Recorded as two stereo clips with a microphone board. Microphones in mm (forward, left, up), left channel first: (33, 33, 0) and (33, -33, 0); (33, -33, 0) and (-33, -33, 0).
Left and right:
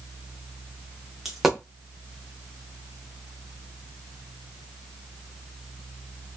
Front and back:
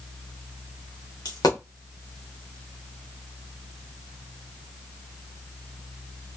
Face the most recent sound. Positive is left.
turn(degrees=-5)